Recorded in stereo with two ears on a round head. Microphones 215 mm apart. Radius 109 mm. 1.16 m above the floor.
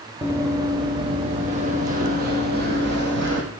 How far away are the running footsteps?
About 2.5 m.